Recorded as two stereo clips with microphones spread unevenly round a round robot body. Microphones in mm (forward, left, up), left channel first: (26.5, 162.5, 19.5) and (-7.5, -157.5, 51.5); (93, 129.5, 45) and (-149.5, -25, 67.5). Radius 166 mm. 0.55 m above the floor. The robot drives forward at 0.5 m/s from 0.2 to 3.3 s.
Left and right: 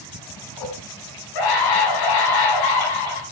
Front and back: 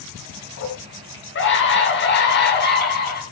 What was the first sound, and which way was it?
A scream, 75° left.